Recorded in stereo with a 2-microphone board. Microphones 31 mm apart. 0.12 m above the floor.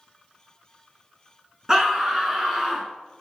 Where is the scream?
20° right (ahead or behind), 1.4 m.